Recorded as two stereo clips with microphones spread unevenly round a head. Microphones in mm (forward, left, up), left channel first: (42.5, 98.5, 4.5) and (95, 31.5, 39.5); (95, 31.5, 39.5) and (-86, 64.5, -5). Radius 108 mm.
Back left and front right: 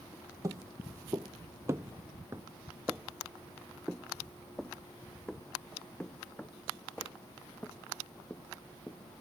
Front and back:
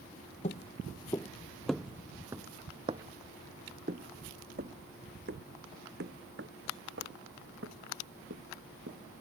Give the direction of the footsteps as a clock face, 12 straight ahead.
2 o'clock.